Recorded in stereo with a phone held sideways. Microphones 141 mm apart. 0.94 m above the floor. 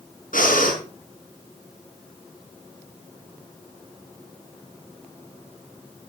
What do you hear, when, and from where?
0.3 s breathing: 75° left (ahead or behind), 5 m